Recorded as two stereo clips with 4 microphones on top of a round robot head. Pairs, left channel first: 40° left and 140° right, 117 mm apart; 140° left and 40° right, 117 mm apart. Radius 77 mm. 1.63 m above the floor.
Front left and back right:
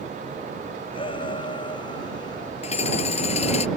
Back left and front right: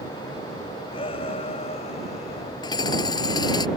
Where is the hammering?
80° left.